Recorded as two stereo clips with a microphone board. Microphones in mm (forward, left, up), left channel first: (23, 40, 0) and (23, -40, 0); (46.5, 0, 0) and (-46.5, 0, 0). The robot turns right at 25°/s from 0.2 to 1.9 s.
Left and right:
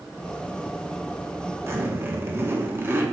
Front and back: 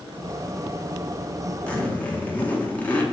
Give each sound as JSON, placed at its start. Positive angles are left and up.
{"t": 1.7, "sound": "a zipper", "azimuth_deg": -65, "distance_m": 1.1}